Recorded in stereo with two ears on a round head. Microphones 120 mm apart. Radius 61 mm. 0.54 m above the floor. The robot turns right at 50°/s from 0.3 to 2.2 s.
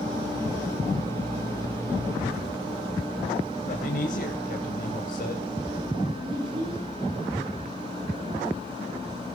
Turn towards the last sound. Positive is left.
turn(degrees=-40)  # may be behind; listen again after turning